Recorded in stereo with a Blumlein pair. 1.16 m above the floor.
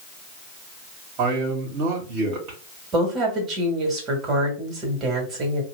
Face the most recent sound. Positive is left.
turn(degrees=-25)